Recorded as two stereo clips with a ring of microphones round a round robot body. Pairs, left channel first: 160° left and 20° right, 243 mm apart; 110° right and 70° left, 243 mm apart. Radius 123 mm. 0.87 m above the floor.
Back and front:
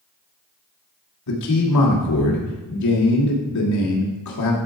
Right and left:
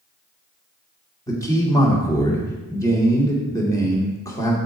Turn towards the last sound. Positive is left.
turn(degrees=170)